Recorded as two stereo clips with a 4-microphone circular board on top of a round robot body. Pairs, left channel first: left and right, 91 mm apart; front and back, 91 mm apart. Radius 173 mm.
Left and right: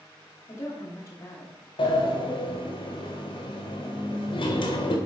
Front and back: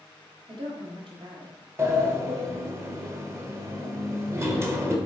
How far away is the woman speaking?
About 2 m.